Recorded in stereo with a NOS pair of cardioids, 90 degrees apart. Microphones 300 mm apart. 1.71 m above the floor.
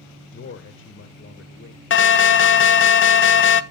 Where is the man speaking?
40° left, 1.7 m.